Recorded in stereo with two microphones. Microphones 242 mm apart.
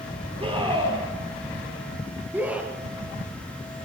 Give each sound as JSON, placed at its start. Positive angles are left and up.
{"t": 0.4, "sound": "a scream", "side_deg": -25, "distance_m": 5.0}